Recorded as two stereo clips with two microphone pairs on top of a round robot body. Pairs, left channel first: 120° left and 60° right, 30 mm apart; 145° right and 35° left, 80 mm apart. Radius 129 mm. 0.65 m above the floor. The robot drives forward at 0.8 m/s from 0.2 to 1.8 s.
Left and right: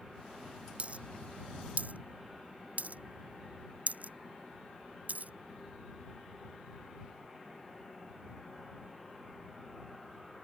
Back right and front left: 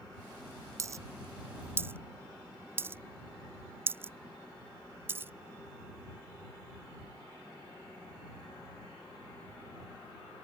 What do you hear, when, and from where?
0.8 s a dropped coin: 20° right; by 5.3 s 30° right